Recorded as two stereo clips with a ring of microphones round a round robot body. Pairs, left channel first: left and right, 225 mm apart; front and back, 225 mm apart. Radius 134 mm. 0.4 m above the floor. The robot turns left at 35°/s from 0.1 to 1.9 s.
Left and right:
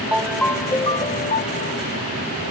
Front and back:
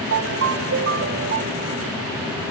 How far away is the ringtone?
About 1.0 m.